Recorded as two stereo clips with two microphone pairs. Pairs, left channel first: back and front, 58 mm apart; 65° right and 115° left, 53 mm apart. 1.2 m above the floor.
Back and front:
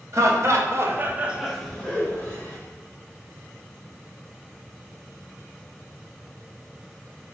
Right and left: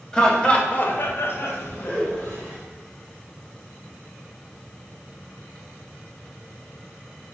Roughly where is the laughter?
Ahead.